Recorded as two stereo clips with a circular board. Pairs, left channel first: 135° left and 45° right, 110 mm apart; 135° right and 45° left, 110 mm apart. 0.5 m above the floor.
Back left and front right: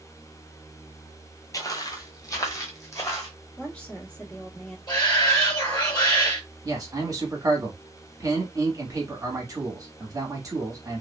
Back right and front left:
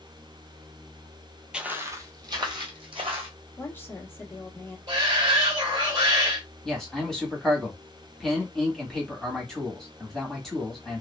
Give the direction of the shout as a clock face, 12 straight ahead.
9 o'clock.